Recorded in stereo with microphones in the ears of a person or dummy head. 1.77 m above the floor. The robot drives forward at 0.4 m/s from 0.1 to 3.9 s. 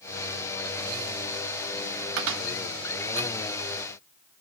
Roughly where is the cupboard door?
Right.